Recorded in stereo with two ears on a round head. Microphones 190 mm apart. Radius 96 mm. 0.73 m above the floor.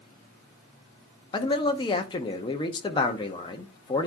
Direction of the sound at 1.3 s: 20° left (ahead or behind).